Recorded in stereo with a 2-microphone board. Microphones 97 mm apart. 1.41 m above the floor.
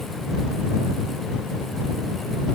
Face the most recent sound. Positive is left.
No sound to turn to.